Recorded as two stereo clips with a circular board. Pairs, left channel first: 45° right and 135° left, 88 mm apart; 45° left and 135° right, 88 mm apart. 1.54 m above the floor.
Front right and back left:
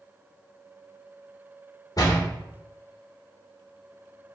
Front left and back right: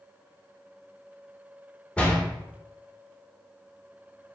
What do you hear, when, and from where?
2.0 s a door slam: 25° right, 1.0 m